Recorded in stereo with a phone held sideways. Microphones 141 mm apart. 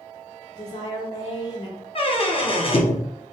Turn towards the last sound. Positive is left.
turn(degrees=40)  # may be behind; listen again after turning